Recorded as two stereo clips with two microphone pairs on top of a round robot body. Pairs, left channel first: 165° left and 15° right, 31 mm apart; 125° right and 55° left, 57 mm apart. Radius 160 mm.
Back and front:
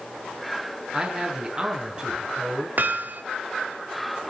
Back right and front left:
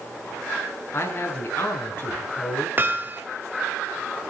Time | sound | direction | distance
0.9 | a man speaking | 75° right | 7 m
2.8 | hammering | straight ahead | 2.5 m